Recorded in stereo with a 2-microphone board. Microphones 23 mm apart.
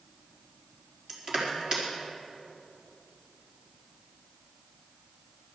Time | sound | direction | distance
1.1 | crushing | 25° right (ahead or behind) | 4.5 m